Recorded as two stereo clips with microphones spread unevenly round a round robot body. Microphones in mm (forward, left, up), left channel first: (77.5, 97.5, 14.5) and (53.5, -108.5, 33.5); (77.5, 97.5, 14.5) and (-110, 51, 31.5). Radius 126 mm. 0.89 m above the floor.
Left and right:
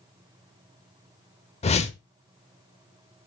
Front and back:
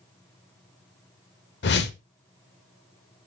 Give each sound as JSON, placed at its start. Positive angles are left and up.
{"t": 1.6, "sound": "a whoosh", "azimuth_deg": 25, "distance_m": 0.8}